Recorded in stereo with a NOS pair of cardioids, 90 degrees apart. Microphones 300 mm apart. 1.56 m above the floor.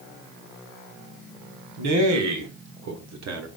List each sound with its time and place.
1.8 s a man speaking: 65° right, 2.0 m; by 3.5 s 55° right, 1.1 m